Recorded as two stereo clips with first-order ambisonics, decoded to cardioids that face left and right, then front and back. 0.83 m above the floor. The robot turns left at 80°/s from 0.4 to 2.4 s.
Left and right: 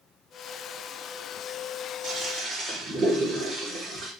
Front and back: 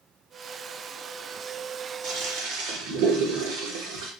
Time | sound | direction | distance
2.0 | a toilet flushing | 140° right | 1.1 m